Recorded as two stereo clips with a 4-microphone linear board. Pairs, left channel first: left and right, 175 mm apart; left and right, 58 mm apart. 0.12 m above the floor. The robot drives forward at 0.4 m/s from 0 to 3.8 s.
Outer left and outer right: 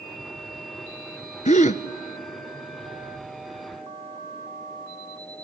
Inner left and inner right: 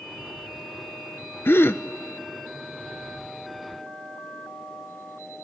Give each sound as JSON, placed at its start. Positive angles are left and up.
{"t": 1.4, "sound": "a gasp", "side_deg": 45, "distance_m": 0.6}